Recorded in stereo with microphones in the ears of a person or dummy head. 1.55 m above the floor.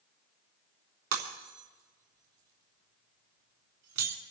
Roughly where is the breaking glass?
Right.